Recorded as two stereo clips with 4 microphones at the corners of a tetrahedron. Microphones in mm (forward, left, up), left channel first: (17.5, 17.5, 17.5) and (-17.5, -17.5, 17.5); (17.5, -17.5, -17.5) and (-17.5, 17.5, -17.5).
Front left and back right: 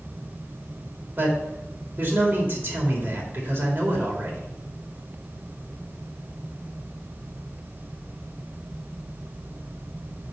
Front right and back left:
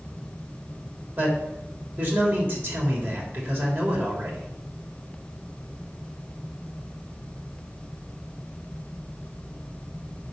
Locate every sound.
1.2 s a man speaking: 175° left, 3.5 m